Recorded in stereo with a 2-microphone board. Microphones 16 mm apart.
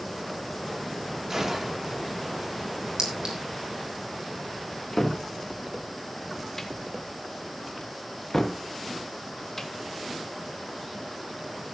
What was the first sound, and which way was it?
A gunshot, 25° right (ahead or behind).